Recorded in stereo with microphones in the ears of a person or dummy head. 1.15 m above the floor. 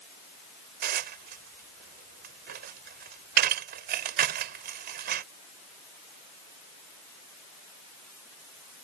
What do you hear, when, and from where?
0.8 s dishes clattering: 50° right (ahead or behind)